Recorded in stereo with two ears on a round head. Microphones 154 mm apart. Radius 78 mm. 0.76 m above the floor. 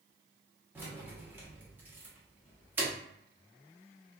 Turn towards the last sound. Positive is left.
turn(degrees=-10)  # may be behind; listen again after turning